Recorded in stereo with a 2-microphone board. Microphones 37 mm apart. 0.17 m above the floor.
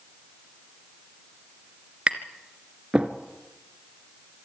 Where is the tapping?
35° right (ahead or behind), 1.7 m.